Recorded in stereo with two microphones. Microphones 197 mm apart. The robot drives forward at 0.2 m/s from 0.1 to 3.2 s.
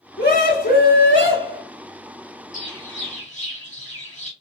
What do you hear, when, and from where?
0.2 s a scream: 45° left (ahead or behind), 1.4 m
2.5 s a bird: 40° left (ahead or behind), 1.7 m; by 4.3 s 35° left (ahead or behind), 1.8 m